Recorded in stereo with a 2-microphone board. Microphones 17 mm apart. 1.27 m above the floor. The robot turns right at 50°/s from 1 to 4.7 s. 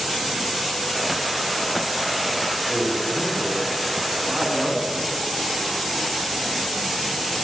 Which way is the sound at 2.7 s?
175° left.